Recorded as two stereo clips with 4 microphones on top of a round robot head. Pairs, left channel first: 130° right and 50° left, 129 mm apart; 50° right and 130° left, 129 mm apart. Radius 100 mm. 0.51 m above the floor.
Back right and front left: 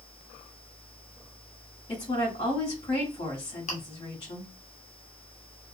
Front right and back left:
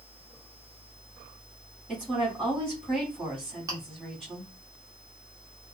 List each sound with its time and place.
1.9 s a woman speaking: 155° right, 1.6 m
3.7 s chewing: 165° right, 0.9 m